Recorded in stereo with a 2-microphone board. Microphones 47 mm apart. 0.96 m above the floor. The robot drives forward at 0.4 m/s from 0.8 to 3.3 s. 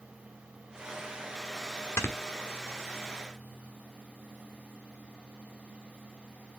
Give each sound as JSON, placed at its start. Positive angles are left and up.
{"t": 2.0, "sound": "snoring", "side_deg": 75, "distance_m": 1.2}